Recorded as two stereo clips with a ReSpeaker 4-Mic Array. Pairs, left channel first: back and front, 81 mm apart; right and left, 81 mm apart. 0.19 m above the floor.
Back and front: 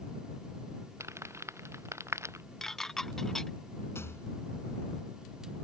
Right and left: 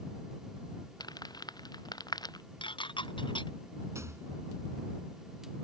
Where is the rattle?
130° left.